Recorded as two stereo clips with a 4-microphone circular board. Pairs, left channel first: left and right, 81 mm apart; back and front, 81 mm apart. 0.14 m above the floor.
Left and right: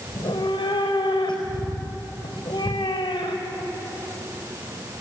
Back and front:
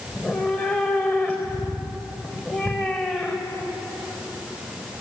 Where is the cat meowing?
110° left, 4 m.